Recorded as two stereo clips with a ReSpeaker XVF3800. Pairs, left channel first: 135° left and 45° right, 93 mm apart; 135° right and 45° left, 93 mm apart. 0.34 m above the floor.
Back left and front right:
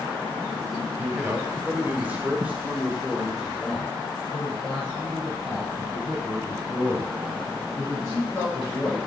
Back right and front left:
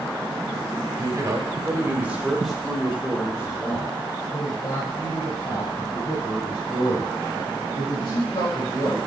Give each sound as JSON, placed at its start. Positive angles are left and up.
{"t": 1.0, "sound": "a man speaking", "azimuth_deg": 15, "distance_m": 1.5}